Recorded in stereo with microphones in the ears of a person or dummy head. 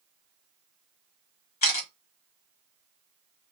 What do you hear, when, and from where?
1.6 s a camera shutter: 55° left (ahead or behind), 1.0 m